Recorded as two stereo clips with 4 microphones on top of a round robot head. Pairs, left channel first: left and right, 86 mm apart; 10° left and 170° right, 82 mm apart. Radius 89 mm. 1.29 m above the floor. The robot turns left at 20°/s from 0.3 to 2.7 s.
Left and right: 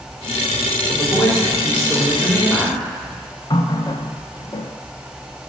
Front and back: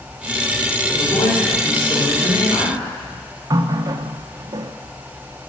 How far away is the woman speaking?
About 5 m.